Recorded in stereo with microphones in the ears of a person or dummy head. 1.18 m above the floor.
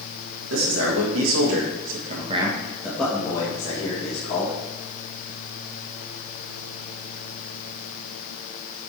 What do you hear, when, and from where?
0.5 s a man speaking: 80° right, 2.5 m; by 4.5 s 30° left (ahead or behind), 3 m